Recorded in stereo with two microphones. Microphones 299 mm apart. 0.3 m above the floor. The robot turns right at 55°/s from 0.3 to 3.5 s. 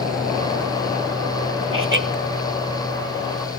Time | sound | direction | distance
1.7 | laughter | 45° right (ahead or behind) | 1.8 m